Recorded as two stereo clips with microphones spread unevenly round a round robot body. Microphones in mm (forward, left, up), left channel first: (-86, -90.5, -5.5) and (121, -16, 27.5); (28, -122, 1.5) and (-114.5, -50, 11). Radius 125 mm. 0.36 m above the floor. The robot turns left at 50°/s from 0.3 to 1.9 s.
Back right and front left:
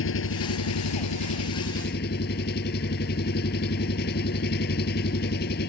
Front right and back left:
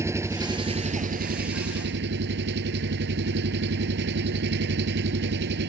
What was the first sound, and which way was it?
An engine running, 135° right.